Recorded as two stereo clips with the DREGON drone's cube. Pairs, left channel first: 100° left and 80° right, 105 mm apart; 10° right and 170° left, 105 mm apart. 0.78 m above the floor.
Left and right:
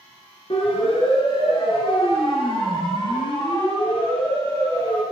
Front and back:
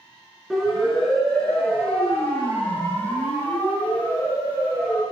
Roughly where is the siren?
Left.